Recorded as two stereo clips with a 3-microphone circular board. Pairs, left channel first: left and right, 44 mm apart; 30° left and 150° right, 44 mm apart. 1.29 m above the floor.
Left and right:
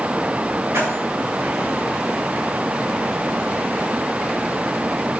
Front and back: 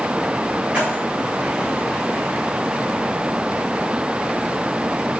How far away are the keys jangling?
About 6.5 m.